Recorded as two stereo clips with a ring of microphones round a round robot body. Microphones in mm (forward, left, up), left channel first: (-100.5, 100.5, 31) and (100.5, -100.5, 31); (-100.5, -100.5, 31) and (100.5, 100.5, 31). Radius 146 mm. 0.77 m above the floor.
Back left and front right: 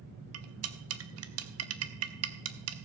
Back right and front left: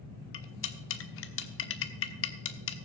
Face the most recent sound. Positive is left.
turn(degrees=-85)